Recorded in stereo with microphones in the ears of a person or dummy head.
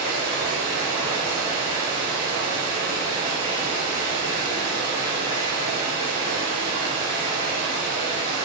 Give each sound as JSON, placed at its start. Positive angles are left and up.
{"t": 0.0, "sound": "running water", "side_deg": -40, "distance_m": 1.6}